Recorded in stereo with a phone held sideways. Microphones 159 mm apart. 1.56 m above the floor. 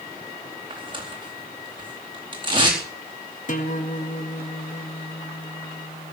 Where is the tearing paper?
30° right (ahead or behind), 4 m.